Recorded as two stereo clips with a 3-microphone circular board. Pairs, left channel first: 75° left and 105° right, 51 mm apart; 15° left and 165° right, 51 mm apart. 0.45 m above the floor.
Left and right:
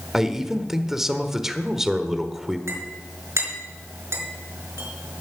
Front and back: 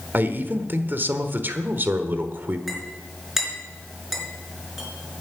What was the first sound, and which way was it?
A man speaking, 175° left.